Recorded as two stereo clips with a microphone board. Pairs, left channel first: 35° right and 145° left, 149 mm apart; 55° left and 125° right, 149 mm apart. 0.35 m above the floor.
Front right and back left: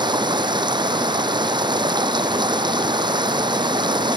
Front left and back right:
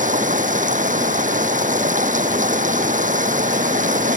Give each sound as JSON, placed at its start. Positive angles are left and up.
{"t": 0.0, "sound": "running water", "azimuth_deg": -155}